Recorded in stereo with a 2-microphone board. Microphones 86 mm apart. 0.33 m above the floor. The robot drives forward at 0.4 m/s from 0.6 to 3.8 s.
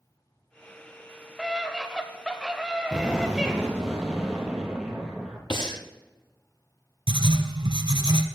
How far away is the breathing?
About 0.7 m.